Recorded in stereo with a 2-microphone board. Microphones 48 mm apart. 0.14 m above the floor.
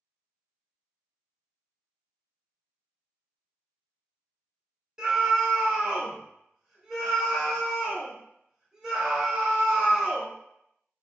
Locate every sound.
5.0 s a scream: 10° right (ahead or behind), 1.3 m